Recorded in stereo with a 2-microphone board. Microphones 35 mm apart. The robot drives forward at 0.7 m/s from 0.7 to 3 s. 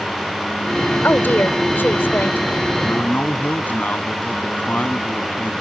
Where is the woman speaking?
75° left (ahead or behind); by 2.4 s 80° left.